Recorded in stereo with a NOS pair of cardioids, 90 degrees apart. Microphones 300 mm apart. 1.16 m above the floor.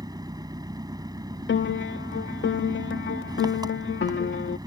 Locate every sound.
0.0 s an engine running: 15° right
1.5 s a piano: 40° left